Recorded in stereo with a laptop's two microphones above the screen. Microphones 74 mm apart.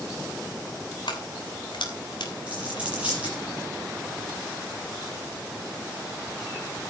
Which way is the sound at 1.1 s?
80° left.